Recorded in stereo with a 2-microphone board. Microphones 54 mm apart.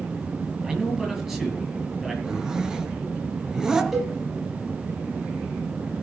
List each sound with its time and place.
0.6 s a man speaking: 5° right (ahead or behind), 6.5 m
2.2 s a zipper: 10° right (ahead or behind), 2.5 m
3.9 s a cowbell: centre (ahead or behind), 6 m